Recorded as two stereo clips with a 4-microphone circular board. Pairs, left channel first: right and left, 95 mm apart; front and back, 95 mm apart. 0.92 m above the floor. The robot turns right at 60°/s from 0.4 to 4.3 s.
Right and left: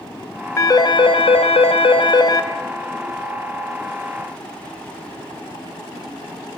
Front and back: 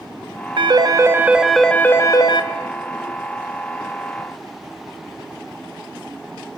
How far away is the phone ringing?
About 0.8 m.